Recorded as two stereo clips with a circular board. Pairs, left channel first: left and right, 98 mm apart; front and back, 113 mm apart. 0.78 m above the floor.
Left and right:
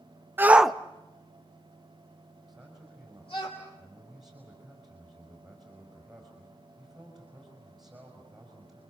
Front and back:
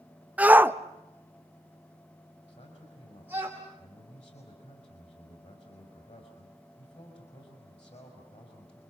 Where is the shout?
120° right, 0.6 m; by 3.5 s 110° left, 2.5 m.